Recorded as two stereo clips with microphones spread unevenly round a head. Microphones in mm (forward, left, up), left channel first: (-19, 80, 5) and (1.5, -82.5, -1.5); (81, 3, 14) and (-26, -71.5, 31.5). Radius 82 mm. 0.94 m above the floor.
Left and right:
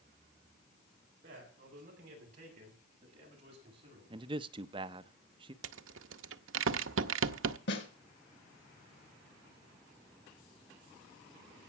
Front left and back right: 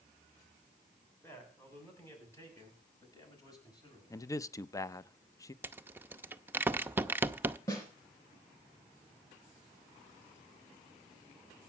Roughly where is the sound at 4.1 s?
Ahead right.